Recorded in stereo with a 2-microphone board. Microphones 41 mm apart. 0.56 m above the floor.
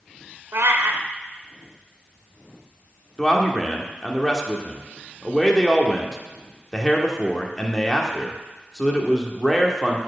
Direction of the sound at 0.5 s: 85° right.